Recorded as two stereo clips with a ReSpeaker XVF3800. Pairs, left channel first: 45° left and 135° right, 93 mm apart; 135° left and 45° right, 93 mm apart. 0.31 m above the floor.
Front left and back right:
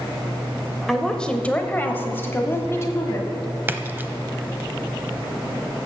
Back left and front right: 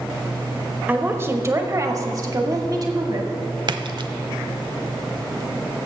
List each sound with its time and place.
0.9 s a woman speaking: 40° right, 0.9 m; by 3.3 s 10° right, 1.8 m
3.7 s a splash: 70° right, 0.6 m